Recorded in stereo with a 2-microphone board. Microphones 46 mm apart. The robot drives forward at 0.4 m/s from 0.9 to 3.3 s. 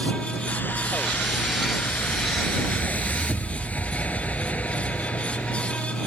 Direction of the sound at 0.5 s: 50° left (ahead or behind).